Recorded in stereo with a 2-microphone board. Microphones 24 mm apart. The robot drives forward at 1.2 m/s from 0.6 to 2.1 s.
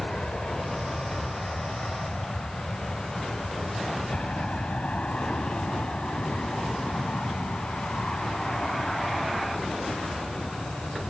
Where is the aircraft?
50° left (ahead or behind); by 11.1 s 65° left (ahead or behind).